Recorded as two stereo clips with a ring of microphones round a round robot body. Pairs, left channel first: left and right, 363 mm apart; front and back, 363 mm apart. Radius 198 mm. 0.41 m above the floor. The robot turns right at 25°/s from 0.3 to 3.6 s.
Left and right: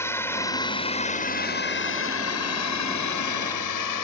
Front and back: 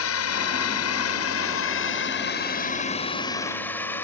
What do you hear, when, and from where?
0.0 s a drone: 10° left; by 4.0 s 85° left